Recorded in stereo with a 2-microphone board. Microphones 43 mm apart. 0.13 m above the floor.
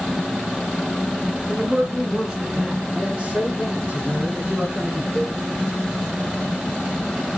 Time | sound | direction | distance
1.5 | a man speaking | 15° right (ahead or behind) | 2 m
3.0 | a man speaking | 25° right (ahead or behind) | 1.3 m
5.2 | a cowbell | 55° left (ahead or behind) | 1.8 m